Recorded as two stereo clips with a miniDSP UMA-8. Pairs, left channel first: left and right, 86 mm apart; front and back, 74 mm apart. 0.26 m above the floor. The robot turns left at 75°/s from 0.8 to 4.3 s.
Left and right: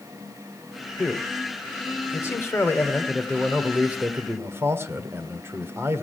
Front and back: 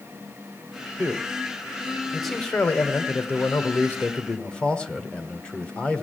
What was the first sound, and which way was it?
A man speaking, 175° right.